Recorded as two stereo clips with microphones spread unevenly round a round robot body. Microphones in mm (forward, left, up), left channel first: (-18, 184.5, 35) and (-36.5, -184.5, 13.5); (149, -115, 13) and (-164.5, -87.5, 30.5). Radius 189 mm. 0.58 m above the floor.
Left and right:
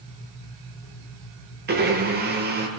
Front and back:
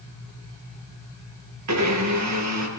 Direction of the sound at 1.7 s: 155° right.